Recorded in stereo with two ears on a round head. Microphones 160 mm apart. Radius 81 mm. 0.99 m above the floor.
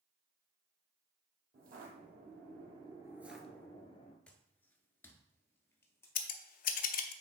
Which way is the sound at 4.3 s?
5° left (ahead or behind).